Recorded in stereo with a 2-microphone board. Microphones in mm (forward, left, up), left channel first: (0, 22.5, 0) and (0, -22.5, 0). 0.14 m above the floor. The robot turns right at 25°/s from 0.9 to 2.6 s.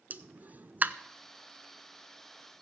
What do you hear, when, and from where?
0.1 s a pop: 40° right (ahead or behind), 0.5 m